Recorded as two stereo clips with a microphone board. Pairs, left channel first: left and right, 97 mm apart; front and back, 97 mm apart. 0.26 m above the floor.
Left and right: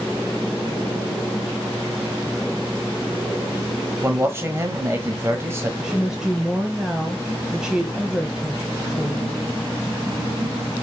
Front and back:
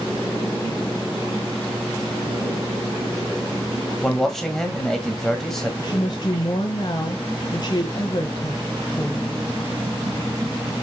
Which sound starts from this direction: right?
A man speaking, at 4.0 s.